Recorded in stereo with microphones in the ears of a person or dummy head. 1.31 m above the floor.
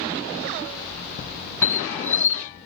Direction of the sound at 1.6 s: 10° left (ahead or behind).